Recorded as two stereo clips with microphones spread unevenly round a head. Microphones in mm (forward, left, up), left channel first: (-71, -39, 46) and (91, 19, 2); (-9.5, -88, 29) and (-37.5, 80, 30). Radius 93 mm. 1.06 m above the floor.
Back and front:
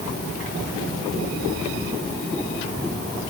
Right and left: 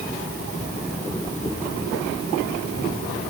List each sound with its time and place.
Only background noise.